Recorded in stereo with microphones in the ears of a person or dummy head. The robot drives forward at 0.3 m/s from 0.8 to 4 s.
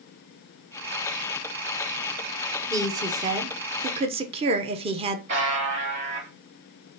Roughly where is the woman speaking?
Centre.